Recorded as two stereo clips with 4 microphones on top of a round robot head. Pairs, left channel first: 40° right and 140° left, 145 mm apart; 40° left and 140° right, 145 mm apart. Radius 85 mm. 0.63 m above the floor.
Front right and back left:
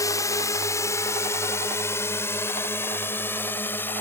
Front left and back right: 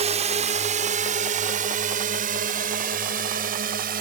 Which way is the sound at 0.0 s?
105° right.